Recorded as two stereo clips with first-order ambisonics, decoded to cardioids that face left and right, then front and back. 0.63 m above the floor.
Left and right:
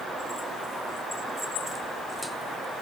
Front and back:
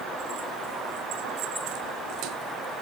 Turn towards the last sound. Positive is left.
No sound to turn to.